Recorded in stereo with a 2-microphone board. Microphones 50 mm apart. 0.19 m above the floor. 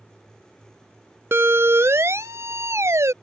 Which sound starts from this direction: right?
A siren, at 1.3 s.